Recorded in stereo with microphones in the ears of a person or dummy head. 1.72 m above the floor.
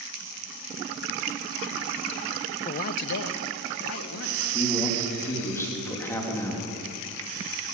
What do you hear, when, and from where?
2.6 s a man speaking: 30° left (ahead or behind), 0.6 m; by 4.6 s 85° left, 2.5 m
4.5 s a man speaking: 15° left (ahead or behind), 3.5 m